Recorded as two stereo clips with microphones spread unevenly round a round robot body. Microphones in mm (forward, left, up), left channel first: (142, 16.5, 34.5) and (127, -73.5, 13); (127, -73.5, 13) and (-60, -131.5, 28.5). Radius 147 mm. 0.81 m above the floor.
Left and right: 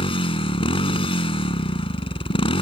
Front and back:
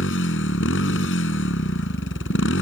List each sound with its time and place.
0.0 s a motorcycle: 70° left